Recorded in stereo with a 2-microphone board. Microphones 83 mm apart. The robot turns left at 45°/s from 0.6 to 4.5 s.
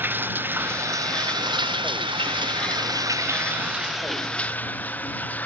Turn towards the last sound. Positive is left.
turn(degrees=160)